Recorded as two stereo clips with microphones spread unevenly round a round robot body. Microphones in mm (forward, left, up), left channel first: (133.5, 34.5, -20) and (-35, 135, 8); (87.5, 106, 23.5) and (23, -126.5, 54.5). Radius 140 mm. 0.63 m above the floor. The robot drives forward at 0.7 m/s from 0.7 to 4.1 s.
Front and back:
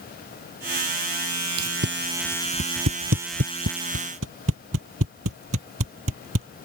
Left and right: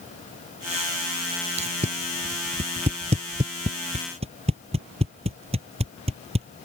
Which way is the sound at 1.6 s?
175° right.